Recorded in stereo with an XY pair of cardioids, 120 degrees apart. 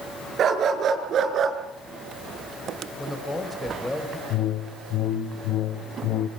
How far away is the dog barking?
About 6 m.